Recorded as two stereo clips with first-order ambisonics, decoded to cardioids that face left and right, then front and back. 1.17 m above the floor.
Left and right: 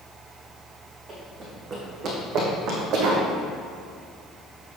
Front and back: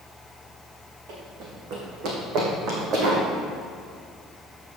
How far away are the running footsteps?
About 3.5 m.